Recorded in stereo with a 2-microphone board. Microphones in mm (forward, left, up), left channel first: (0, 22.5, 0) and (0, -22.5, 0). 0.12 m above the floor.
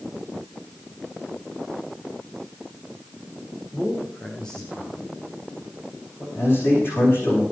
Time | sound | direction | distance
3.7 | a man speaking | 25° left (ahead or behind) | 7 m
6.3 | a man speaking | 55° left (ahead or behind) | 10 m